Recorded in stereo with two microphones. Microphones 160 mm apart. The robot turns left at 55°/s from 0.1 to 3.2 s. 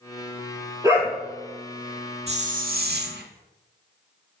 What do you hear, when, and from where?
0.8 s a dog barking: 20° right (ahead or behind), 1.6 m; by 1.2 s centre (ahead or behind), 1.6 m
2.3 s a hiss: 40° right, 0.5 m; by 3.3 s 90° right, 0.5 m